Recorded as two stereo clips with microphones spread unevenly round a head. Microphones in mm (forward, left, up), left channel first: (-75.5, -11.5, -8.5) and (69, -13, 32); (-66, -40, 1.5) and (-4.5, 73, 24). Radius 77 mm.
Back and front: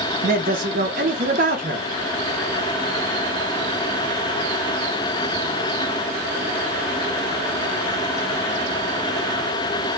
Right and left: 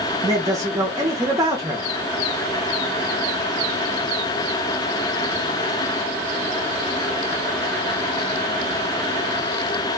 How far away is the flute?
I don't hear a flute.